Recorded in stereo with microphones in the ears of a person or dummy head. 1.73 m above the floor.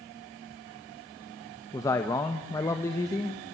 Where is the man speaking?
15° left (ahead or behind), 1.5 m.